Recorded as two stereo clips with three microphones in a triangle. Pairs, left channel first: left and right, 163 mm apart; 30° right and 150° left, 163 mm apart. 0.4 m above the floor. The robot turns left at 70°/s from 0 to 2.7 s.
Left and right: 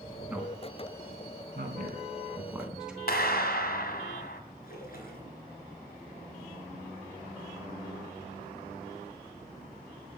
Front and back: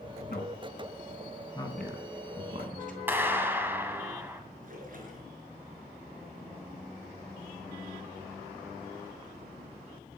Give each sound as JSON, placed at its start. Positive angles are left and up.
{"t": 0.3, "sound": "a man speaking", "azimuth_deg": -5, "distance_m": 4.5}
{"t": 3.1, "sound": "a clap", "azimuth_deg": 75, "distance_m": 1.8}
{"t": 4.6, "sound": "a splash", "azimuth_deg": 115, "distance_m": 4.0}